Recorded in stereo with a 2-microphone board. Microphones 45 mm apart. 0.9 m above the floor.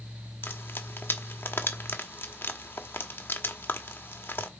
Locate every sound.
0.4 s frying: 55° left (ahead or behind), 1.7 m